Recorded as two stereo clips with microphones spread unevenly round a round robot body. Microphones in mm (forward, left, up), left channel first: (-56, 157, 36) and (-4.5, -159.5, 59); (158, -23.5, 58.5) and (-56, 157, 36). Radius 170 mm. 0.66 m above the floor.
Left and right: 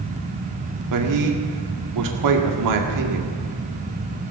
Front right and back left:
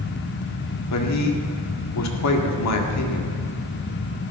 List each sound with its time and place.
0.9 s a man speaking: 60° right, 2 m